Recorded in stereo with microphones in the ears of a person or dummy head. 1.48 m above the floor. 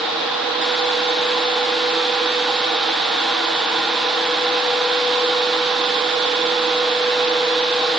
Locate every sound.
Only background noise.